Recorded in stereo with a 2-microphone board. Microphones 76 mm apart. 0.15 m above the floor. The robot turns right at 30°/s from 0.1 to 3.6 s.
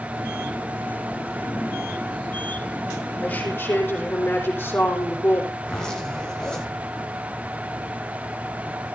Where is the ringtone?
No ringtone in this recording.